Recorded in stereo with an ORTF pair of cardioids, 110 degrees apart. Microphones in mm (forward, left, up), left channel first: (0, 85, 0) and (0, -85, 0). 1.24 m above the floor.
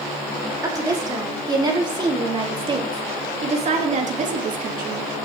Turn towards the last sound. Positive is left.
turn(degrees=-60)